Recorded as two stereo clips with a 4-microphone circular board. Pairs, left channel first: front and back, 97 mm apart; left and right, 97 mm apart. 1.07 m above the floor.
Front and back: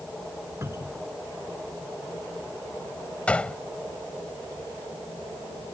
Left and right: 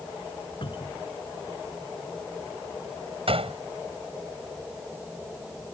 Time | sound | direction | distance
0.6 | a cupboard door | 120° left | ?
3.3 | a gunshot | 75° right | ?